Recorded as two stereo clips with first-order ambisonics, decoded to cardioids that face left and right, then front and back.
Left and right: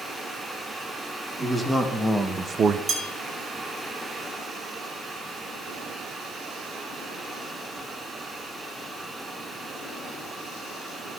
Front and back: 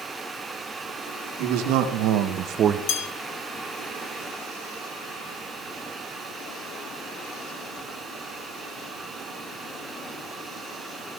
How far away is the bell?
About 1.7 m.